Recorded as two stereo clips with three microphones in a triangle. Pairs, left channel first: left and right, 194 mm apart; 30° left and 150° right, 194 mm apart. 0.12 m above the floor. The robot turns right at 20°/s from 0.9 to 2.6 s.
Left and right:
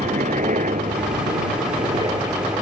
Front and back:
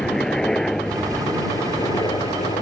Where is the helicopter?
55° right; by 2.6 s 25° right.